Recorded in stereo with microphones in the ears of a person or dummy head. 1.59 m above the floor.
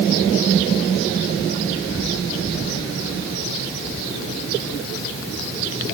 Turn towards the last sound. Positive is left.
No sound to turn to.